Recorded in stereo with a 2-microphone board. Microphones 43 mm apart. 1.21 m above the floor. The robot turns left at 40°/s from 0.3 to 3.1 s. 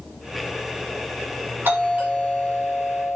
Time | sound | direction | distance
1.6 | a doorbell | 125° right | 7.5 m